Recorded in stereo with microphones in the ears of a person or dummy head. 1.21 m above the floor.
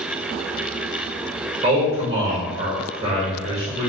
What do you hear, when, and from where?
1.6 s a man speaking: 30° right (ahead or behind), 1.0 m